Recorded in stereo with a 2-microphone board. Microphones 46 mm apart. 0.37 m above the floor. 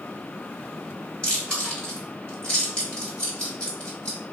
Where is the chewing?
20° left (ahead or behind), 1.4 m.